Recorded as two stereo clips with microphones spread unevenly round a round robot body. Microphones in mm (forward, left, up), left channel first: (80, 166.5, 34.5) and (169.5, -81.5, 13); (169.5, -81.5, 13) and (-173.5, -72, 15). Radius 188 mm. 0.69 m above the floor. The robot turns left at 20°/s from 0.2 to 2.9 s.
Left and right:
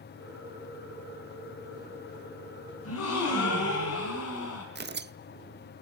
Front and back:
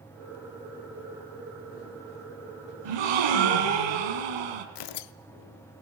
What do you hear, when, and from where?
2.9 s a gasp: 165° left, 3 m
4.8 s tearing paper: 15° right, 0.7 m